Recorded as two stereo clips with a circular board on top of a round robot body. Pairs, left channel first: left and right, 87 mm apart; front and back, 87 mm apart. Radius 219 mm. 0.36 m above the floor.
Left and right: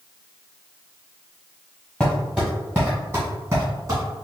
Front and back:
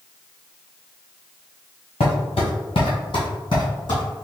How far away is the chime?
No chime in this recording.